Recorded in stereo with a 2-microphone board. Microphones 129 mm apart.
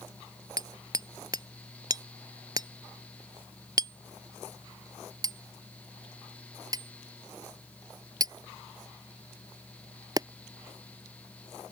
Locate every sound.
0.6 s hammering: 30° right (ahead or behind)